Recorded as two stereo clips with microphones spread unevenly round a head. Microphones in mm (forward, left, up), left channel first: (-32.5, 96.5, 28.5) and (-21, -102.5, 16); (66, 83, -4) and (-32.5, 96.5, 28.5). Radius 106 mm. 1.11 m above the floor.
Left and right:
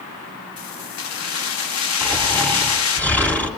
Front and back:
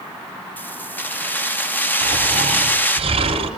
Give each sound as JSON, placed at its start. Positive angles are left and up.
{"t": 0.6, "sound": "keys jangling", "azimuth_deg": 65, "distance_m": 1.4}
{"t": 2.0, "sound": "snoring", "azimuth_deg": 175, "distance_m": 3.5}